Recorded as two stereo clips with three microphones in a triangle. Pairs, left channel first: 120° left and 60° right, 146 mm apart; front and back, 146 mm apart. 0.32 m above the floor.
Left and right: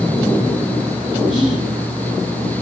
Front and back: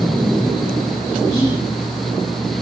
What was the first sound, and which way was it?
Whispering, 20° left.